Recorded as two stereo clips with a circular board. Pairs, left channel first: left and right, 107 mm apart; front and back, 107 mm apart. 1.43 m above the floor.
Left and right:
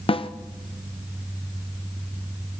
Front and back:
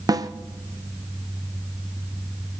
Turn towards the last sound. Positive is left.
turn(degrees=125)